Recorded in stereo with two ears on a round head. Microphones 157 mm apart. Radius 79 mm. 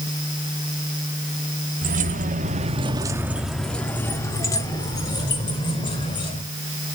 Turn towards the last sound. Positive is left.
turn(degrees=30)  # may be behind; listen again after turning